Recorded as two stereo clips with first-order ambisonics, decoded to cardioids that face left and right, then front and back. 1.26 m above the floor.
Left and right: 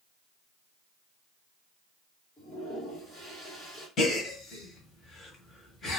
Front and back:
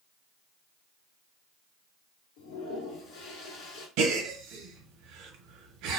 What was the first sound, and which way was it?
A toilet flushing, 15° left.